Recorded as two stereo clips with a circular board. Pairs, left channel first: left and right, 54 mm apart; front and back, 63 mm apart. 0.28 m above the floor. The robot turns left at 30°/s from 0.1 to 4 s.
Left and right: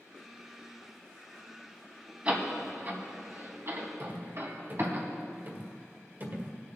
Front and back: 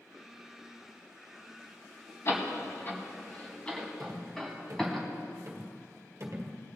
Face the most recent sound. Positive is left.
turn(degrees=-135)